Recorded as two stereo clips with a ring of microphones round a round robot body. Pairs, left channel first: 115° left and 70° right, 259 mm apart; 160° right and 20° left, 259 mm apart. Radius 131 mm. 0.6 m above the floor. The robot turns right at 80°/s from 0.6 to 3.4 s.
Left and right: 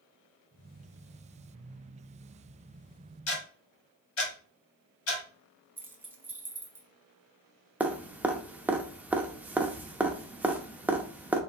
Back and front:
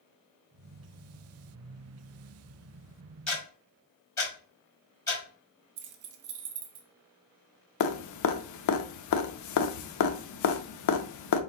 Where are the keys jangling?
15° left, 0.7 m.